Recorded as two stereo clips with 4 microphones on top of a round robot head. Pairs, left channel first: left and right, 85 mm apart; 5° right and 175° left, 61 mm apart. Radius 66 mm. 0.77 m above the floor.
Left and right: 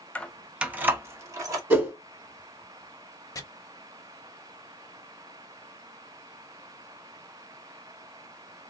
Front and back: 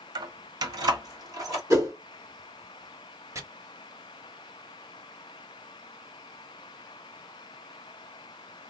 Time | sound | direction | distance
0.1 | keys jangling | 165° left | 0.6 m
1.7 | a whoosh | 160° right | 1.8 m
3.4 | chopping | 140° left | 1.3 m